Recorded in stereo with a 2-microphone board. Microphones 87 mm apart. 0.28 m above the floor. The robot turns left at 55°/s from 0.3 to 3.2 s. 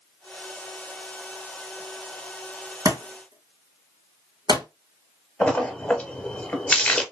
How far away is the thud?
About 1.6 m.